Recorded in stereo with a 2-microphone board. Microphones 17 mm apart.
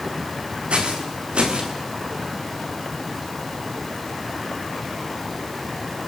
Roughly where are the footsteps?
Right.